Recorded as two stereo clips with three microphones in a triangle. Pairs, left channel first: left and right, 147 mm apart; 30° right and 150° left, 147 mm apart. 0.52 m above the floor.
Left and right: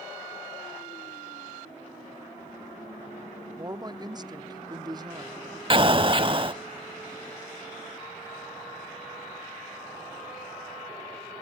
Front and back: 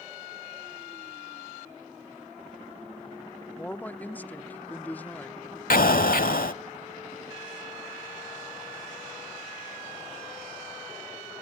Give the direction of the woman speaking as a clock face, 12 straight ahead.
3 o'clock.